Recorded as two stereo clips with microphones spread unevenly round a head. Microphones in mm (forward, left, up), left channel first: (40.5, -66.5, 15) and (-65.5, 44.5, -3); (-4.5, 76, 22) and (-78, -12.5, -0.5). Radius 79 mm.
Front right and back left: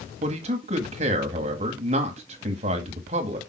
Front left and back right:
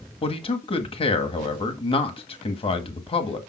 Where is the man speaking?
90° left, 1.8 m.